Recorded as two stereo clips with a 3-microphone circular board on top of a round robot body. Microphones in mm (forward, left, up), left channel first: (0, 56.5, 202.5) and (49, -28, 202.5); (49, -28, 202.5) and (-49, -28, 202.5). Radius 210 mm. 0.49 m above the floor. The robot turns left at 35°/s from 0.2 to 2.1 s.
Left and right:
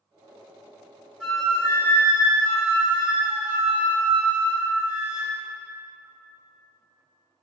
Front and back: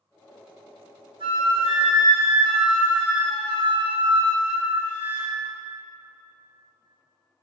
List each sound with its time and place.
1.2 s a flute: 155° right, 1.2 m; by 5.3 s 175° left, 1.2 m